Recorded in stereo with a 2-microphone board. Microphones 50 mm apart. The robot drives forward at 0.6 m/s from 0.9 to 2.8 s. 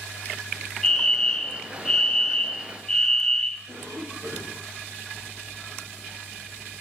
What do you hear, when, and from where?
0.8 s a fire alarm: 10° left (ahead or behind), 0.9 m
3.7 s a cough: 65° right (ahead or behind), 6.5 m